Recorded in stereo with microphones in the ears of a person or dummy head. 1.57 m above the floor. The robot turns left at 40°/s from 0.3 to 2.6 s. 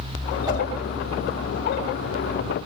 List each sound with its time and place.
0.5 s a whoosh: 20° right (ahead or behind), 7 m; by 0.6 s 15° right (ahead or behind), 7 m